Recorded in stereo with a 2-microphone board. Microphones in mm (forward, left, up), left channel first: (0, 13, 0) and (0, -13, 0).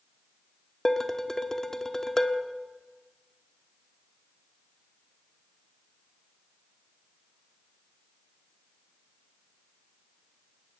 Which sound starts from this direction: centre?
Dishes clattering, at 0.8 s.